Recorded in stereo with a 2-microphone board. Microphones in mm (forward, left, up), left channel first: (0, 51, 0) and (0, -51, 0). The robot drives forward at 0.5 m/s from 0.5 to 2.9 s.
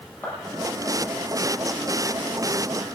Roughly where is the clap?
Centre.